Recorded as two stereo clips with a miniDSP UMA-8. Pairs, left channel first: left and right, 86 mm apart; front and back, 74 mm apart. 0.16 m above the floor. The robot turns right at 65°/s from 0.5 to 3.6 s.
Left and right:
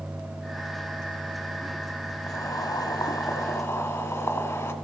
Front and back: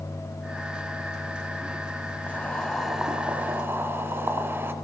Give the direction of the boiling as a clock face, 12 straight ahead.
10 o'clock.